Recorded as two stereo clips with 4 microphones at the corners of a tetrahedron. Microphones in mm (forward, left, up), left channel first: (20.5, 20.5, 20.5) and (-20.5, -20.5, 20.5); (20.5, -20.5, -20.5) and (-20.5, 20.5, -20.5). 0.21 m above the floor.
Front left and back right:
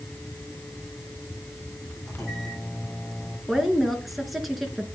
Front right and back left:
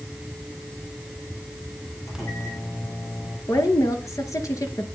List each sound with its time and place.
2.1 s a microwave: 40° right, 6.5 m
3.5 s a woman speaking: 45° right, 2.5 m